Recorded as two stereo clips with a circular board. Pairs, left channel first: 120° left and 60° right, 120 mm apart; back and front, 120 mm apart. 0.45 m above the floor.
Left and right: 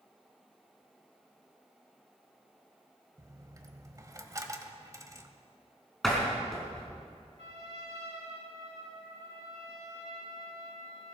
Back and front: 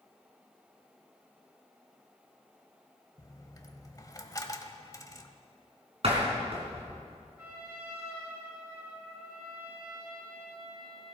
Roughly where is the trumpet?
Right.